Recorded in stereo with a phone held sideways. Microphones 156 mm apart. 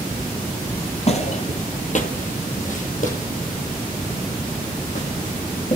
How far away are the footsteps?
About 1.7 m.